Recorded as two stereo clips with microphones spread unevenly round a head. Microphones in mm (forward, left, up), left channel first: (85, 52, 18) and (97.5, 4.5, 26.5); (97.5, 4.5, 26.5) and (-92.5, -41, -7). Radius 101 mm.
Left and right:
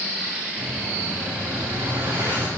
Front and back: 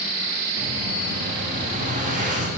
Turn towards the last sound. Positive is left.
turn(degrees=-120)